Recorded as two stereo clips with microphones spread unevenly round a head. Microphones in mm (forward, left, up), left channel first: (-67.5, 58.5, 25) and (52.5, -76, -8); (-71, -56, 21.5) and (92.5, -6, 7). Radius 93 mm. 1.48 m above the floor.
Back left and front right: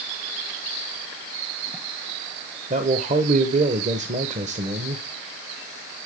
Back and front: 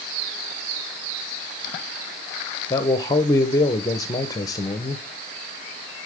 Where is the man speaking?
100° right, 0.7 m.